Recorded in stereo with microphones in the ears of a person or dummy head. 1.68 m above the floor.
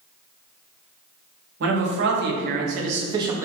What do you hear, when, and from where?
1.6 s a man speaking: 65° right (ahead or behind), 1.4 m; by 3.5 s 10° right (ahead or behind), 0.7 m